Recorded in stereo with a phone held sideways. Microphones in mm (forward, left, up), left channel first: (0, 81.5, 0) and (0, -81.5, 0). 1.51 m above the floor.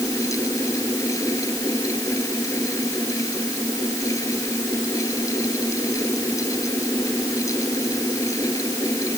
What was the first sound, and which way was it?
A fan, 20° left (ahead or behind).